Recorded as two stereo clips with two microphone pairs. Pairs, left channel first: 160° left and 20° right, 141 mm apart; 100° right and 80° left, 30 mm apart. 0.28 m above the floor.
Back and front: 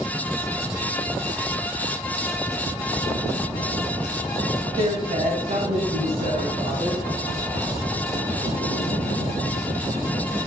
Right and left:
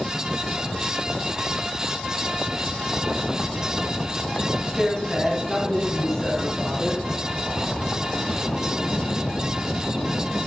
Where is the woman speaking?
5° left, 1.6 m; by 7.0 s 30° right, 4 m.